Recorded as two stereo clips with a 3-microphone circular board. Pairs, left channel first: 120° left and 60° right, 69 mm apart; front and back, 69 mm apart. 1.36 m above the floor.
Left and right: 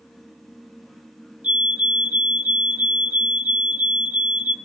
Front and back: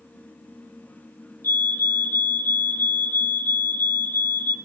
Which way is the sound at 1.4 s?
10° right.